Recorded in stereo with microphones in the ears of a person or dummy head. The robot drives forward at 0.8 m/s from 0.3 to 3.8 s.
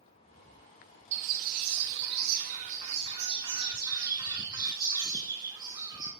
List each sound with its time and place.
1.1 s a bird: 40° right (ahead or behind), 0.9 m; by 6.1 s 20° right (ahead or behind), 1.8 m